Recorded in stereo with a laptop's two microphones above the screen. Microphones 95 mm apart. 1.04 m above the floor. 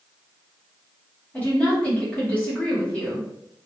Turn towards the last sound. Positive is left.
turn(degrees=10)  # may be behind; listen again after turning